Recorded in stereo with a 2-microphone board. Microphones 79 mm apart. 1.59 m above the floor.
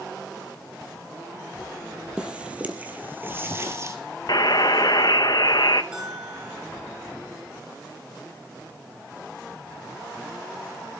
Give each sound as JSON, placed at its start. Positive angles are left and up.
{"t": 2.2, "sound": "footsteps", "side_deg": -15, "distance_m": 3.0}
{"t": 4.3, "sound": "a buzzer", "side_deg": 60, "distance_m": 1.1}
{"t": 5.9, "sound": "a bell", "side_deg": -10, "distance_m": 9.0}